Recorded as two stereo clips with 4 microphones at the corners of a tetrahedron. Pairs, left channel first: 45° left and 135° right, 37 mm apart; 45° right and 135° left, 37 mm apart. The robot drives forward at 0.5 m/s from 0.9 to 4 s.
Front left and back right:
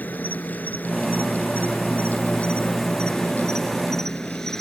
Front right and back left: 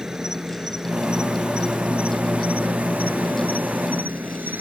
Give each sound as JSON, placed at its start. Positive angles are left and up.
{"t": 0.0, "sound": "an insect", "azimuth_deg": 65}